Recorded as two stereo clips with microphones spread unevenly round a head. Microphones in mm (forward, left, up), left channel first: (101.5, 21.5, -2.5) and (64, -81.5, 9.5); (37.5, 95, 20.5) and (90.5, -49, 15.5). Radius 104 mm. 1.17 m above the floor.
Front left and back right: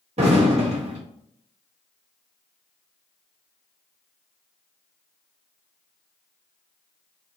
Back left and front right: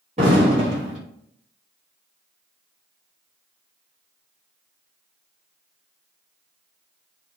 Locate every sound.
0.2 s an explosion: 130° right, 0.7 m